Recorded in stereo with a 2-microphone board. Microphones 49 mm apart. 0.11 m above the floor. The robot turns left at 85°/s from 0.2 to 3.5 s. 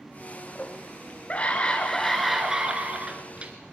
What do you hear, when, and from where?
0.6 s a scream: 15° left (ahead or behind), 1.6 m; by 3.5 s 25° right (ahead or behind), 1.6 m